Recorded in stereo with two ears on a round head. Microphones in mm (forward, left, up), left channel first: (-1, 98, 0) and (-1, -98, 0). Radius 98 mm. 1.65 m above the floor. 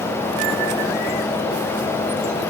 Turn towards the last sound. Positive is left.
No sound to turn to.